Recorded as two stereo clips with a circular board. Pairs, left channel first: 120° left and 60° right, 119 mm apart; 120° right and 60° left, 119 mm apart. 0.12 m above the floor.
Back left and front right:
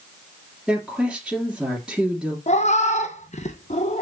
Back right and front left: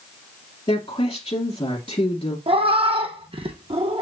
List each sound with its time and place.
0.7 s a woman speaking: 145° right, 2 m
2.5 s a cat meowing: 100° left, 1.1 m